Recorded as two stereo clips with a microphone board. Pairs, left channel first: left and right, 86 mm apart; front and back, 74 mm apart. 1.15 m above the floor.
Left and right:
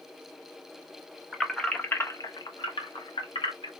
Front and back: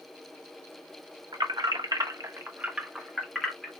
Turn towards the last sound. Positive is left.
turn(degrees=80)